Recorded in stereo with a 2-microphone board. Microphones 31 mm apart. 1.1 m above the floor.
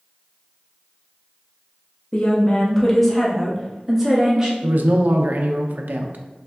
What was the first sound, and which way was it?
A woman speaking, 40° left (ahead or behind).